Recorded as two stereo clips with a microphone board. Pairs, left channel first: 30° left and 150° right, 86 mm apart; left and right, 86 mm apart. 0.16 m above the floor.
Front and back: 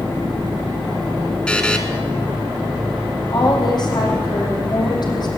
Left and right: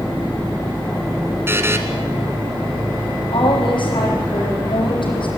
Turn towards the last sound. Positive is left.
turn(degrees=65)